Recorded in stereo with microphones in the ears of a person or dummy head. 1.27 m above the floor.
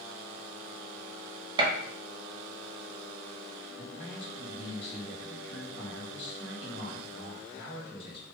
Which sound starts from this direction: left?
A man speaking, at 3.8 s.